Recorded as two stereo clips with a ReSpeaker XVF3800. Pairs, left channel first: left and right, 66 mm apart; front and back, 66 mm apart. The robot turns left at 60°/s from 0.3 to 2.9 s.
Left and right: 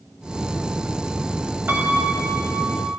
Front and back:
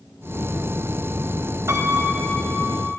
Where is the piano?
145° right, 2.5 m; by 2.9 s 145° left, 2.5 m.